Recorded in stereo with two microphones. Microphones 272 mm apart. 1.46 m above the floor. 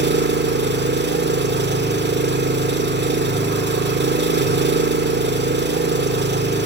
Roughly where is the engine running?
Right.